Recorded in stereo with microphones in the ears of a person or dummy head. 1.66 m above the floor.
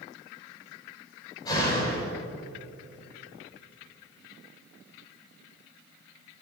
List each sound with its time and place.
1.4 s a door slam: 25° left (ahead or behind), 6 m